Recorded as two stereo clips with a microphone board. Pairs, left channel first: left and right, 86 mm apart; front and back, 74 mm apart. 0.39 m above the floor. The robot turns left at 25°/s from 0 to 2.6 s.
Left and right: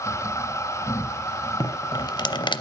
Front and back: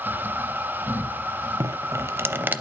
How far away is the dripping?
About 0.5 m.